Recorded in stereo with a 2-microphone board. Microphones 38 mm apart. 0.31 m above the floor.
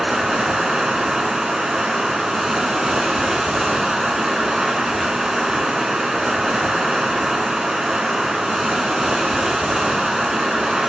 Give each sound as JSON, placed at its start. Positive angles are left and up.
{"t": 0.0, "sound": "running water", "side_deg": -20, "distance_m": 1.1}